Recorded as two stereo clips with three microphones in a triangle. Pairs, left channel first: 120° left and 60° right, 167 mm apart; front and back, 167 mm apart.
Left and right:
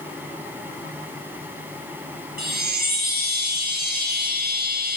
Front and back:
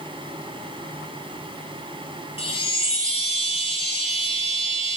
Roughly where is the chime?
Ahead right.